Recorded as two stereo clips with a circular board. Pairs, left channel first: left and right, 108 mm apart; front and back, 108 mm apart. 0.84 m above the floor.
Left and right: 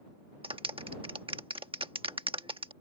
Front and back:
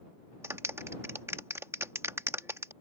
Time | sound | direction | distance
0.4 | a clap | 115° right | ?